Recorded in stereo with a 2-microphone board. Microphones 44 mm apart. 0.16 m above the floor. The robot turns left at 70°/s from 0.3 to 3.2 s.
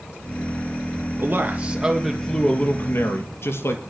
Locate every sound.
1.2 s a man speaking: 120° right, 3 m; by 3.8 s 95° left, 3 m